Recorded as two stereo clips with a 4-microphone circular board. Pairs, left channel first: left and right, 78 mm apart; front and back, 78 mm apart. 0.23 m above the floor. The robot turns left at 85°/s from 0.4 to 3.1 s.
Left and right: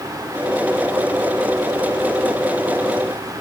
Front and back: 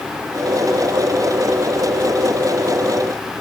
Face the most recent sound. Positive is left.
No sound to turn to.